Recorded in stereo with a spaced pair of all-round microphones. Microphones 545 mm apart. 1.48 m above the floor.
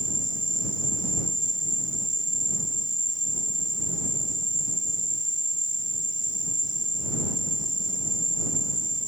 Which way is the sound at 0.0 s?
25° right (ahead or behind).